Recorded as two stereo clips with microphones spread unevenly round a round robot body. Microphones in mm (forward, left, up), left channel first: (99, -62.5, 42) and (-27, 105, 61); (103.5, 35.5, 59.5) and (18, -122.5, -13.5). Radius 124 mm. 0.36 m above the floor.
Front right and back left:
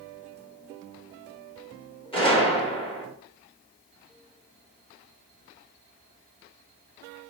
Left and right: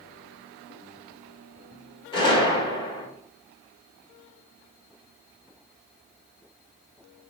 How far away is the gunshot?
About 1.7 m.